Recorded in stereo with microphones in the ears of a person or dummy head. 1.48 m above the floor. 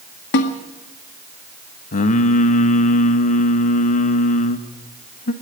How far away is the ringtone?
I don't hear a ringtone.